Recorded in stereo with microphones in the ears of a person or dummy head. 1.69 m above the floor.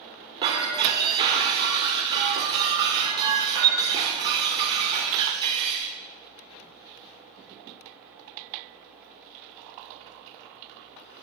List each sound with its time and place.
0.4 s breaking glass: 25° right (ahead or behind), 1.8 m